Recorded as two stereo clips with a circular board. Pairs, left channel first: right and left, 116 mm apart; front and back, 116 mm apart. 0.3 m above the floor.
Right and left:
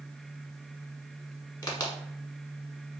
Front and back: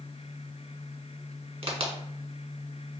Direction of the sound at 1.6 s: 145° right.